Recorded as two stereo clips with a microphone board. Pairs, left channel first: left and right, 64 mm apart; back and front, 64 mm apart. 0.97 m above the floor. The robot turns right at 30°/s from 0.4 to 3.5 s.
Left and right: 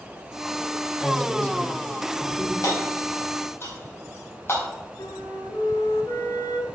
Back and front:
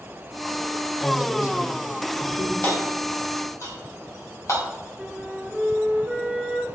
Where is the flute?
85° left, 2.5 m.